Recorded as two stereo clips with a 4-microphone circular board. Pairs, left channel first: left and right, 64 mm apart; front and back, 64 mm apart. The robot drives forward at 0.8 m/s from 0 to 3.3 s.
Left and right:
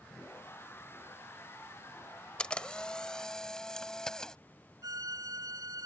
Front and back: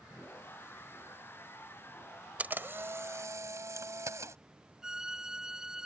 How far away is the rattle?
No rattle in this recording.